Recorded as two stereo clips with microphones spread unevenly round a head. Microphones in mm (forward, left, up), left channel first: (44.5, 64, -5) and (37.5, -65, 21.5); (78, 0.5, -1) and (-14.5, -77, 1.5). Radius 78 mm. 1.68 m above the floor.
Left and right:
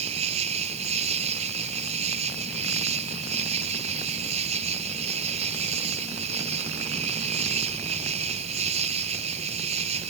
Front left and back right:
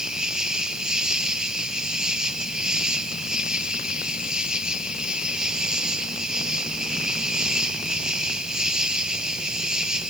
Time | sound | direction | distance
0.0 | an insect | 55° right | ?